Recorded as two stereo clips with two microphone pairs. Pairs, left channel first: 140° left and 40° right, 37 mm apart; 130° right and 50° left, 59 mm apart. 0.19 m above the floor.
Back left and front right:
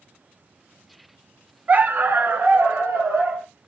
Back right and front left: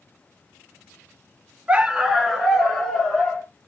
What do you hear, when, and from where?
1.7 s a dog barking: 10° right, 0.7 m; by 3.5 s 50° right, 2.5 m